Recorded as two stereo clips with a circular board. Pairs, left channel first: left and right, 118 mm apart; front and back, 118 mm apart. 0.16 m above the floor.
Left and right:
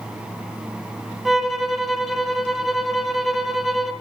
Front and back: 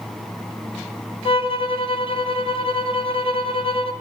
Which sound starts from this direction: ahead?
A violin, at 1.2 s.